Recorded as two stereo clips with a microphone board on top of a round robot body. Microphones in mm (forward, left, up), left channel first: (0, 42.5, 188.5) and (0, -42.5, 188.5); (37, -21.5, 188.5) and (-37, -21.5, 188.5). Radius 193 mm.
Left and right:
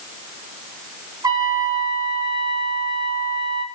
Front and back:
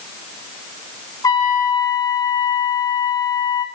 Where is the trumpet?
40° right, 0.6 m.